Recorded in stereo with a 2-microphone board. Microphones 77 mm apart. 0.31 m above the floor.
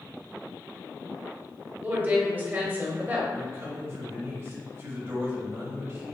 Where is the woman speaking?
25° right (ahead or behind), 1.2 m.